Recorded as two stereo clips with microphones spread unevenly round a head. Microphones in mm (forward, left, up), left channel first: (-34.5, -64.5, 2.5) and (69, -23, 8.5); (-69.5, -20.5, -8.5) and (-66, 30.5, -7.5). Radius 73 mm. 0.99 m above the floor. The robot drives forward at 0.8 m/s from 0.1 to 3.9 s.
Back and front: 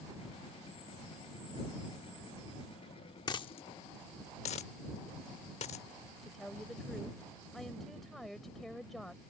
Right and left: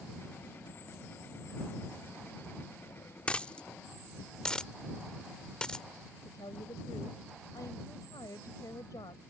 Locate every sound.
3.3 s a dropped coin: 150° right; by 5.8 s 165° right
6.2 s a woman speaking: 70° right